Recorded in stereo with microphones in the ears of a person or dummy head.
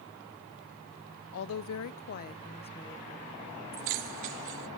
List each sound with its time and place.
1.3 s a woman speaking: 70° left (ahead or behind), 1.0 m; by 3.4 s 10° left (ahead or behind), 2 m
3.7 s keys jangling: 45° right (ahead or behind), 0.8 m